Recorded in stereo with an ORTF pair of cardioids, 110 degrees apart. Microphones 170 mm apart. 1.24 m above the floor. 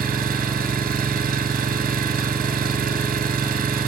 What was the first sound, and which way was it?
An engine running, 65° right.